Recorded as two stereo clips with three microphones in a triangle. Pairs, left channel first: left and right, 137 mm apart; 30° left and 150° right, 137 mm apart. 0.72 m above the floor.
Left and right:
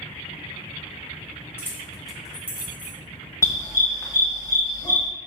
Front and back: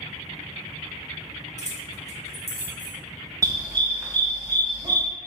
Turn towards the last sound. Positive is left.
turn(degrees=150)